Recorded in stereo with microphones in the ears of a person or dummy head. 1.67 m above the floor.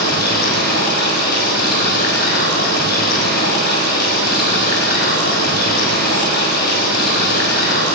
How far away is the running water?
About 6 m.